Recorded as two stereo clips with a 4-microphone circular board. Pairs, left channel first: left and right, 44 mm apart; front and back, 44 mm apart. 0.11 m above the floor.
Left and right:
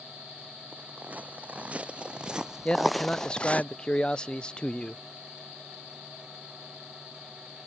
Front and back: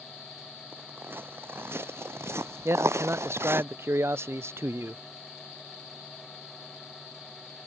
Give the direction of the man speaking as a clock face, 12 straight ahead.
7 o'clock.